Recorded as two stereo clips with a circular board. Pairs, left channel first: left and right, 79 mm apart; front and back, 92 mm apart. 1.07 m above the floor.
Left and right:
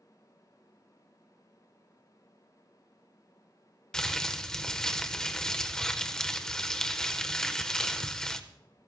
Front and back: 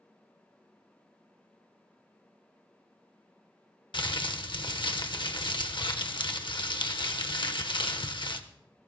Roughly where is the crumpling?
Ahead.